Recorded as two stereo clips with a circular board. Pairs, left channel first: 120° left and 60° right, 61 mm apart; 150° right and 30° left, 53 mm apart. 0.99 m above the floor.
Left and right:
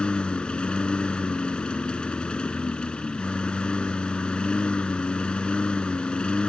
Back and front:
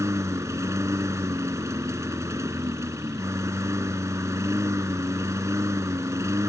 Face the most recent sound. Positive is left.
turn(degrees=45)